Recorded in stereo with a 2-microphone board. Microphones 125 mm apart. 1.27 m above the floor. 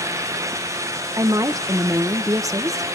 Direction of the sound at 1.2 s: 25° right (ahead or behind).